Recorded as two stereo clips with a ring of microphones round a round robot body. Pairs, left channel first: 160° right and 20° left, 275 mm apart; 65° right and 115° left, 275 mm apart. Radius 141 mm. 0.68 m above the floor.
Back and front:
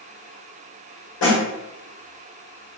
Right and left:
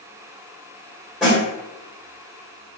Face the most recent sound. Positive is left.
turn(degrees=-160)